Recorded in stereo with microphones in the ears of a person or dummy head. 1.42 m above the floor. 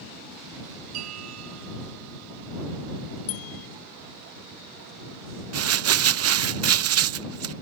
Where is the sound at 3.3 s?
85° left.